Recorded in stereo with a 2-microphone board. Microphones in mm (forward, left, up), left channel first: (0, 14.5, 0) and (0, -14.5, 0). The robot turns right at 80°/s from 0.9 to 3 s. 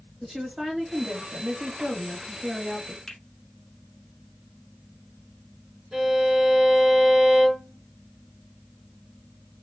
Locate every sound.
0.2 s a woman speaking: 150° right, 1.8 m; by 3.0 s 20° left, 1.8 m
3.1 s a finger snap: 20° left (ahead or behind), 1.1 m
5.9 s a violin: 40° right (ahead or behind), 2 m